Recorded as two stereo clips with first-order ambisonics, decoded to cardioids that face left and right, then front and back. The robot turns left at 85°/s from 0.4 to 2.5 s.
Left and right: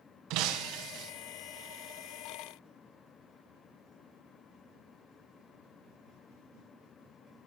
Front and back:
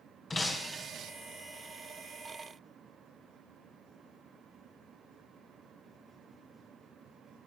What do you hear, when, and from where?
0.3 s breaking glass: 75° right, 0.9 m; by 1.1 s 140° right, 0.9 m